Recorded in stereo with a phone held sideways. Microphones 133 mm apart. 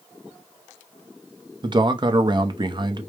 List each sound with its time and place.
1.6 s a man speaking: 35° right (ahead or behind), 0.6 m